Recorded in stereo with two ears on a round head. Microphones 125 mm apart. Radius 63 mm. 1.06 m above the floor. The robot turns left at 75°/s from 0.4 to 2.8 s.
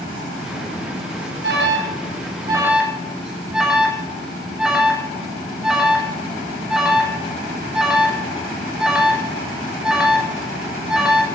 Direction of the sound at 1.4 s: 70° right (ahead or behind).